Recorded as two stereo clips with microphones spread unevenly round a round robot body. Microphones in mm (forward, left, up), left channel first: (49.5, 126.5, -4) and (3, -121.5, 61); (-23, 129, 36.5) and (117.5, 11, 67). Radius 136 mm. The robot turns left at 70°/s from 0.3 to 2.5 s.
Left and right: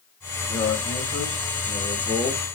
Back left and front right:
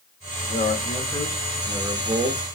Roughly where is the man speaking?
Behind left.